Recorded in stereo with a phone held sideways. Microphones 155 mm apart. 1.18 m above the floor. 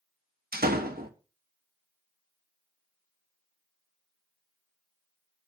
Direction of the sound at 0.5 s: 80° right.